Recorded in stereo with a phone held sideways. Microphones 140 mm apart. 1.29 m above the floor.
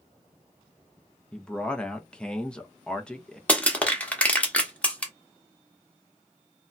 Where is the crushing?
10° left (ahead or behind), 0.8 m.